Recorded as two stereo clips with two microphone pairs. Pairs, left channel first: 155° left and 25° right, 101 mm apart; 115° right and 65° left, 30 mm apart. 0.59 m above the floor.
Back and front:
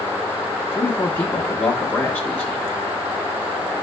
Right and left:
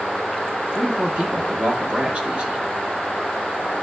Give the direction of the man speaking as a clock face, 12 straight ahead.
9 o'clock.